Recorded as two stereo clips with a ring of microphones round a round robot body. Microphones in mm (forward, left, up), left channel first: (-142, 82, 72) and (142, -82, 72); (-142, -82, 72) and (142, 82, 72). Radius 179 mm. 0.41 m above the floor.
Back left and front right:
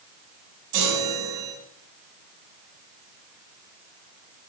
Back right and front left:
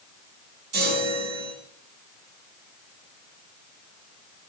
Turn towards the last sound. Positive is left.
turn(degrees=-30)